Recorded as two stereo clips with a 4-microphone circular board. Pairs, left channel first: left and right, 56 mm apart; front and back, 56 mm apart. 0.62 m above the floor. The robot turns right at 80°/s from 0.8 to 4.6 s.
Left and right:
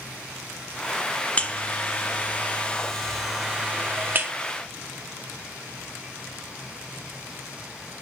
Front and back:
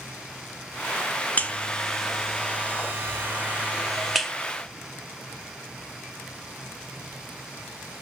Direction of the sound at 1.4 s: 40° left.